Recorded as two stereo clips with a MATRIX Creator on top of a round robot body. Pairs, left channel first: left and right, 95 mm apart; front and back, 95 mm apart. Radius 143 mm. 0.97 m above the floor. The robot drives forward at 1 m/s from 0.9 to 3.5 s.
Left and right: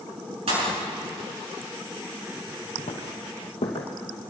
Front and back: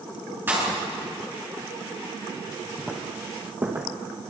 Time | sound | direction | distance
0.5 | a pop | 110° right | 7.5 m
2.8 | footsteps | 90° left | 1.8 m